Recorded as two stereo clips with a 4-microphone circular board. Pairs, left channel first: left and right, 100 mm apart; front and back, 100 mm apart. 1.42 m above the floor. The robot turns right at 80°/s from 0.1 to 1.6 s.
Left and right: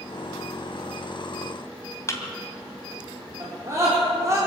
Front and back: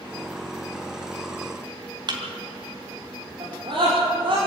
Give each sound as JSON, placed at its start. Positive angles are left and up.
{"t": 2.1, "sound": "a thud", "azimuth_deg": 145, "distance_m": 2.5}
{"t": 3.4, "sound": "a scream", "azimuth_deg": -150, "distance_m": 4.5}